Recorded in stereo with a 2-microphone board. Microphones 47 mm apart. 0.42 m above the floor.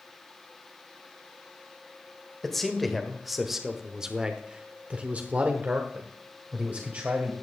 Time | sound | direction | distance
2.4 | a man speaking | 5° left (ahead or behind) | 1.7 m